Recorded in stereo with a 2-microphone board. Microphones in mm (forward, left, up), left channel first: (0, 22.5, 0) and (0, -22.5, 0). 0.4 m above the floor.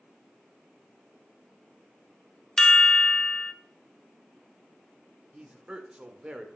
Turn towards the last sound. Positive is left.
turn(degrees=-20)  # may be behind; listen again after turning